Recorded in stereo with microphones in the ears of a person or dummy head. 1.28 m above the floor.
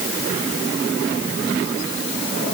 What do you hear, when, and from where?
Only background noise.